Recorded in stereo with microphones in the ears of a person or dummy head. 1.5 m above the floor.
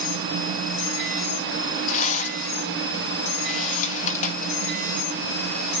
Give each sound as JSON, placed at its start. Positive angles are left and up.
{"t": 1.9, "sound": "a rattle", "side_deg": 45, "distance_m": 2.0}